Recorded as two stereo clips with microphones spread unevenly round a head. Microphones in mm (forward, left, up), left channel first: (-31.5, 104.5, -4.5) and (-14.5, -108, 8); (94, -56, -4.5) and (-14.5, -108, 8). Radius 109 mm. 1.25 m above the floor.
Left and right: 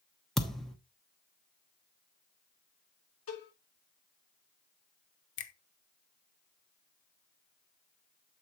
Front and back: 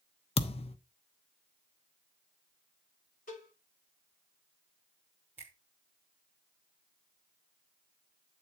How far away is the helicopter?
I don't hear a helicopter.